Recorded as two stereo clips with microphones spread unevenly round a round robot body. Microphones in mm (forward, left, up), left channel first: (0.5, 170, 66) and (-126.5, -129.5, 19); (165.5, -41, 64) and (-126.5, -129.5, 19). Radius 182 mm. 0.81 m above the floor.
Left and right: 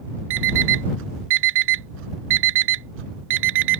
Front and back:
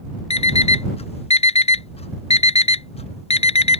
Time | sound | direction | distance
0.3 | an alarm clock | 55° right | ?